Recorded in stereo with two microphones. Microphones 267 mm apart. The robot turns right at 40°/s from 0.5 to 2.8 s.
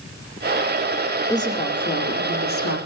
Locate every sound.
1.3 s a woman speaking: 15° left, 2.5 m; by 2.8 s 70° left, 2.5 m